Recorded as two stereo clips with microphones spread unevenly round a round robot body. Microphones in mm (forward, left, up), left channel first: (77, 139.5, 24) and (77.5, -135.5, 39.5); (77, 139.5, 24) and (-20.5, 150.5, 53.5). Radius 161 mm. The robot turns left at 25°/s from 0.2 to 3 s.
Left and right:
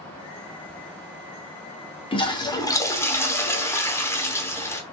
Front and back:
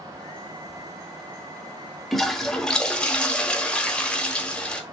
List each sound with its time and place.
2.1 s a toilet flushing: 45° left, 0.8 m; by 4.8 s 25° left, 0.8 m